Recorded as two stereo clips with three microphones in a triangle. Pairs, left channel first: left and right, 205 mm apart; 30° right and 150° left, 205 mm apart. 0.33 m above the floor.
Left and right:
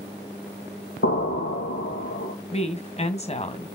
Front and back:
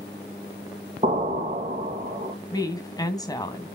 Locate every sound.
1.0 s an explosion: 95° left, 2.5 m
2.5 s a woman speaking: 40° left, 2 m